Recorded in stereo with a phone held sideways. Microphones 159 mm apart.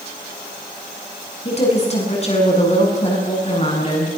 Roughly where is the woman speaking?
Left.